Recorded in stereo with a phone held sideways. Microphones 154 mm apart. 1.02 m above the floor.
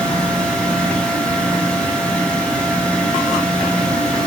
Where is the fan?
5° left (ahead or behind), 0.7 m.